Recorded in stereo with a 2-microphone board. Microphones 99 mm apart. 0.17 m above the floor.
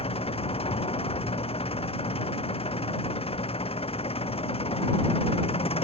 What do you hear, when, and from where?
0.0 s an engine running: 80° left